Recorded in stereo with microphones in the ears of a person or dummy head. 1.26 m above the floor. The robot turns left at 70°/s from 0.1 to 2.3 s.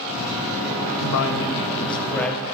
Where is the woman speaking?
100° left, 0.8 m; by 2.5 s 10° left, 0.8 m.